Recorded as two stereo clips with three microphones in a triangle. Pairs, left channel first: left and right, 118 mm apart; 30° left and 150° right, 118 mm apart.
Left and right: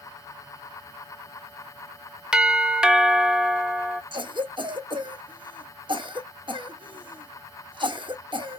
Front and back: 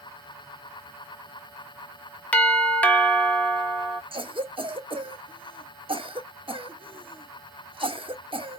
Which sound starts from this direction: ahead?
A doorbell, at 2.3 s.